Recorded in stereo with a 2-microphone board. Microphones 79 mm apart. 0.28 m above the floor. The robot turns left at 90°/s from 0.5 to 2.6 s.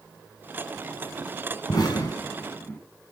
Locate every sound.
1.7 s an explosion: 60° left (ahead or behind), 2.5 m; by 2.8 s 25° left (ahead or behind), 2.5 m